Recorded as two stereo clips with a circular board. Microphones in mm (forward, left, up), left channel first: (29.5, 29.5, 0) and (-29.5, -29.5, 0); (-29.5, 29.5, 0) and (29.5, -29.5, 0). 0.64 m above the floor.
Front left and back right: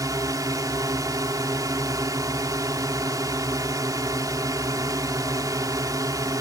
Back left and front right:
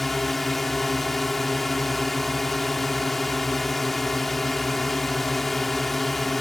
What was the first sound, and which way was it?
A drone, 140° right.